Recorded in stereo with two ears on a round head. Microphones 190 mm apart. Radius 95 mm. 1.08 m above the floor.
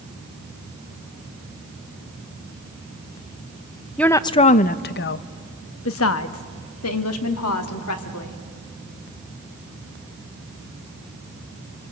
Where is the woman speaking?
5° left (ahead or behind), 0.5 m; by 8.4 s 85° left, 2.5 m.